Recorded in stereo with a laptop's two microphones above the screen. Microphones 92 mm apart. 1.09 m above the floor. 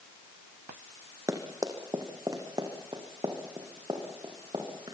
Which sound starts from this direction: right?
Running footsteps, at 1.3 s.